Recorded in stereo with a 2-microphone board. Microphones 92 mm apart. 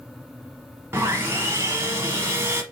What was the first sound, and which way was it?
Sawing, 25° right (ahead or behind).